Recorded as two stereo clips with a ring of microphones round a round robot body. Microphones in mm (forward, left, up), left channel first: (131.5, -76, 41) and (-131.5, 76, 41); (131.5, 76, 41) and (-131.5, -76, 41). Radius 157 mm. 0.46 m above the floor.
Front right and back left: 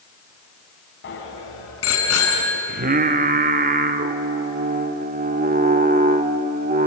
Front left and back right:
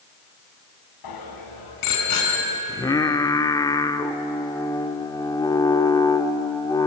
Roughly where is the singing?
Left.